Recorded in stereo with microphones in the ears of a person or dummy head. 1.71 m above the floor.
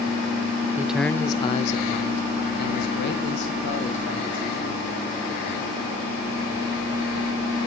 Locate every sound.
0.8 s a man speaking: 15° right (ahead or behind), 0.5 m; by 4.9 s 75° left (ahead or behind), 2.5 m